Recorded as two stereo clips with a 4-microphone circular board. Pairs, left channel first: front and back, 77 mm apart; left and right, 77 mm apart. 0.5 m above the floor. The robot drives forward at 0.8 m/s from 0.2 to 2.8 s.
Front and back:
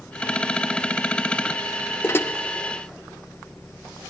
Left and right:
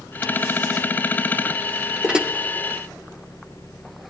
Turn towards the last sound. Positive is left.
turn(degrees=-150)